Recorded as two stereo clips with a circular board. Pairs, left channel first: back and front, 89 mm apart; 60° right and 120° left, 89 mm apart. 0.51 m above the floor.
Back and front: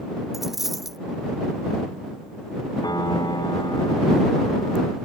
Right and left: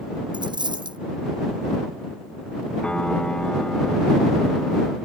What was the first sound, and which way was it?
A dropped coin, 85° left.